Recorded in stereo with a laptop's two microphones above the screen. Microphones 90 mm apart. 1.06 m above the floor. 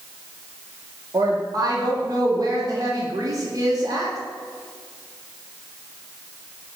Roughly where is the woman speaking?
Right.